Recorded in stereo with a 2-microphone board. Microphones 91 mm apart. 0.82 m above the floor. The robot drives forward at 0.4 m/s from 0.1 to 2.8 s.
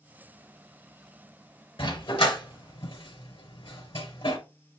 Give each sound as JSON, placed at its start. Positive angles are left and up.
{"t": 1.8, "sound": "a dog barking", "side_deg": 70, "distance_m": 4.0}